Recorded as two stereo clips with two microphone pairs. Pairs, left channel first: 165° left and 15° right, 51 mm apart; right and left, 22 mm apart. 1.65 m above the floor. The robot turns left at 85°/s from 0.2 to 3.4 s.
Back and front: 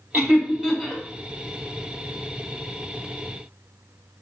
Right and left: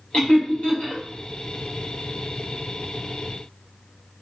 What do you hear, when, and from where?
0.1 s laughter: 50° right, 1.6 m; by 1.0 s 120° right, 1.6 m